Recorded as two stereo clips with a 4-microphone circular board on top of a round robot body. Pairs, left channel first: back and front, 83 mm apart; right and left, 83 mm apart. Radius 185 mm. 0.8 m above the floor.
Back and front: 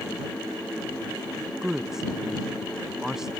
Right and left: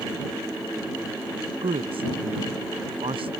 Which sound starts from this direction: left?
A woman speaking, at 1.6 s.